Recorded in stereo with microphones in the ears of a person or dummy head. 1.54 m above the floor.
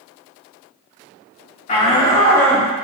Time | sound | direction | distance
1.7 | a shout | 35° left (ahead or behind) | 1.9 m